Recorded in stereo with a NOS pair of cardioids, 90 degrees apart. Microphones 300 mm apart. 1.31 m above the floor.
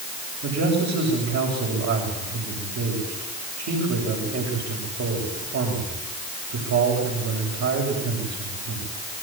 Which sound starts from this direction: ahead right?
A man speaking, at 0.4 s.